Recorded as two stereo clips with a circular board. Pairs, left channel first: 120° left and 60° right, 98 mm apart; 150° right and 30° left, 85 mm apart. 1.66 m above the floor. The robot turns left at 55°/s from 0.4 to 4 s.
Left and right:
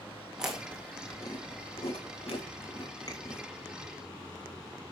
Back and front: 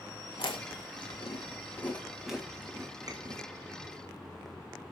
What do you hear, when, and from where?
0.4 s chewing: 140° right, 3 m; by 3.4 s 55° left, 3 m